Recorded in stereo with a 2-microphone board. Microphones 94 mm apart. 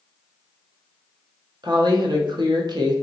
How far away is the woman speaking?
About 0.7 m.